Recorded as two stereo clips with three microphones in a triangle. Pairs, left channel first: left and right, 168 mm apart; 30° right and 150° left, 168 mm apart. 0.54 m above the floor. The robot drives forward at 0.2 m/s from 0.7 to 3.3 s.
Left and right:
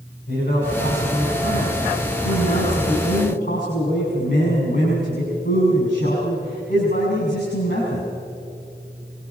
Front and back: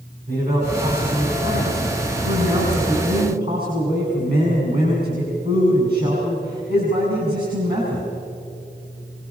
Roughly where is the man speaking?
Behind left.